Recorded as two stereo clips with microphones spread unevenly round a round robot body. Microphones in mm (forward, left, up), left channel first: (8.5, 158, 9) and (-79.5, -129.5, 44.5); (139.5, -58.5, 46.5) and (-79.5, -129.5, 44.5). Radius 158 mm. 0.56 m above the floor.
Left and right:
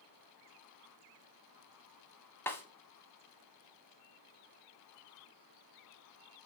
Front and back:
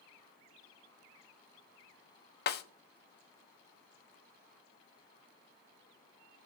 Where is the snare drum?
15° right, 0.5 m.